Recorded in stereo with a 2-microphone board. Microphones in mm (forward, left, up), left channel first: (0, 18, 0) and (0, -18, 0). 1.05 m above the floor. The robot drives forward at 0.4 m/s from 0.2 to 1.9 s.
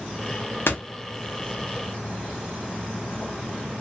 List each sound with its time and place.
0.7 s a door slam: 80° left, 0.7 m; by 0.8 s 85° left, 0.7 m